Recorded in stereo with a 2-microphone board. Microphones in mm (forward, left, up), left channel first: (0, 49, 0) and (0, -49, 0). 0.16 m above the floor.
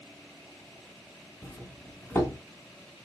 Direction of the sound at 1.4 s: 20° left (ahead or behind).